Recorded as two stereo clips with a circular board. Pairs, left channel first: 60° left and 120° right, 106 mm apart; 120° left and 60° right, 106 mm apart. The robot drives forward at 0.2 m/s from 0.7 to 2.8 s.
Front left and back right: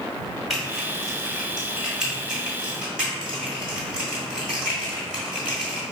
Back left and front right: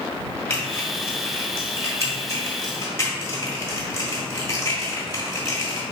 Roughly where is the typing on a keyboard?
Behind.